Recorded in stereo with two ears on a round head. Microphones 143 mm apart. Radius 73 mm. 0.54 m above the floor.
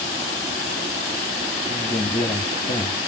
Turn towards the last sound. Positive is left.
turn(degrees=20)  # may be behind; listen again after turning